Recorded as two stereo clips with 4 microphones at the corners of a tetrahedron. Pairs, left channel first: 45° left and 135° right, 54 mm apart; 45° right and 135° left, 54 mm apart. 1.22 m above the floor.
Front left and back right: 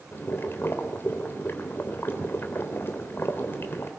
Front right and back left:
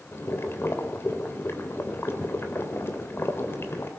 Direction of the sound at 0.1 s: Straight ahead.